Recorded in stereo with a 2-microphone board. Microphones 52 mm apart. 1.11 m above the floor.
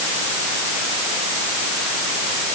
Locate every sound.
Only background noise.